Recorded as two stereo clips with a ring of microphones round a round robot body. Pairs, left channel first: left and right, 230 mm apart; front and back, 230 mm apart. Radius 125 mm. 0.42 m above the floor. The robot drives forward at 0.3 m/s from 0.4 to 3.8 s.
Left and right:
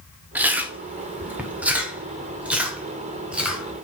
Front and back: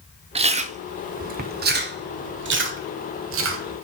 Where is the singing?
No singing in this recording.